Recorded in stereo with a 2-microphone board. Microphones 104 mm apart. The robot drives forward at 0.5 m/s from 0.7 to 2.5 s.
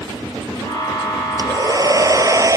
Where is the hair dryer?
35° right (ahead or behind).